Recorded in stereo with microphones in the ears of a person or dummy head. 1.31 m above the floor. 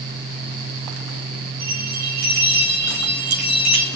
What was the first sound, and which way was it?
A bell, 75° right (ahead or behind).